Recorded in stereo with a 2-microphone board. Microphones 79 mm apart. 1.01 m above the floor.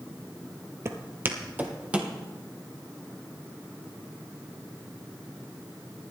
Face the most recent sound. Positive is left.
turn(degrees=-15)  # may be behind; listen again after turning